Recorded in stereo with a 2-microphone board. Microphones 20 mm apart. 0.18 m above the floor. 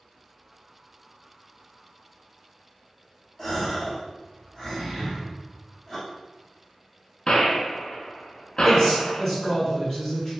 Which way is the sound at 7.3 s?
50° left (ahead or behind).